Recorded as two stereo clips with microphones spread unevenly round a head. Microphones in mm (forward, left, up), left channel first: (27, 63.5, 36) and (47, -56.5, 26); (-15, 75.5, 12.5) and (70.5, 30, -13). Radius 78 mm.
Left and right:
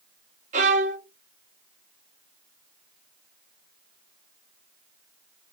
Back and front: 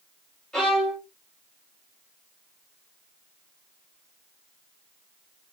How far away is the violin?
About 0.5 m.